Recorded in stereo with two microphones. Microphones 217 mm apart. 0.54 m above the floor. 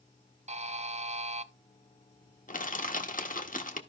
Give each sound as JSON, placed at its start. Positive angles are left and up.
{"t": 0.5, "sound": "a buzzer", "side_deg": -35, "distance_m": 0.6}
{"t": 2.5, "sound": "crushing", "side_deg": 40, "distance_m": 1.1}